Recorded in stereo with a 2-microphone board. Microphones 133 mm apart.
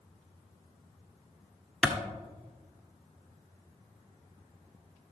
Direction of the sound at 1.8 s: 5° right (ahead or behind).